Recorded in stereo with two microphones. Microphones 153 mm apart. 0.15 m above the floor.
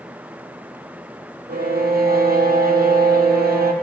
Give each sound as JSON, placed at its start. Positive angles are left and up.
{"t": 1.5, "sound": "a violin", "side_deg": -70, "distance_m": 1.4}